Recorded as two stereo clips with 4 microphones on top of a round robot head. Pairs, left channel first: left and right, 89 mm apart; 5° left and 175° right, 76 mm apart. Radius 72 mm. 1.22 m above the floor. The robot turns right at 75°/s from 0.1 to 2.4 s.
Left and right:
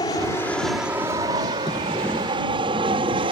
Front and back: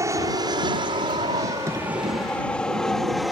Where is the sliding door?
135° left; by 3.2 s 170° right.